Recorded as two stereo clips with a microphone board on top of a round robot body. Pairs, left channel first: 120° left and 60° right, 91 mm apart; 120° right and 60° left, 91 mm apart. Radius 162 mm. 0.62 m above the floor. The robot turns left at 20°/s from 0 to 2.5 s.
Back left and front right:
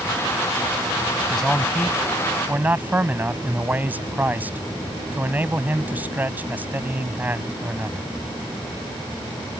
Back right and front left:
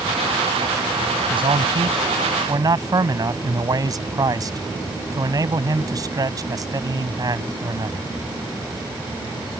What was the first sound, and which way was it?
A man speaking, 35° left.